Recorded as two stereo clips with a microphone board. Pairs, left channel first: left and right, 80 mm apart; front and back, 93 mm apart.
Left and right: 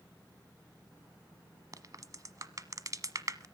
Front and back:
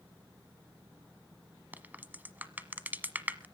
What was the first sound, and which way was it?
A crack, 115° right.